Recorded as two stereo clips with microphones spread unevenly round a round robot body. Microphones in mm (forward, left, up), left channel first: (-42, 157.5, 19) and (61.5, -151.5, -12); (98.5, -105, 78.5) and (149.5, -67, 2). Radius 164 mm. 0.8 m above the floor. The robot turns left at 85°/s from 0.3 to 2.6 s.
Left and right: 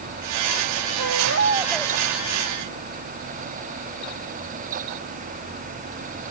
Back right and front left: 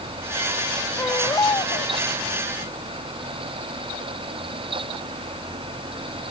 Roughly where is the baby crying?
Right.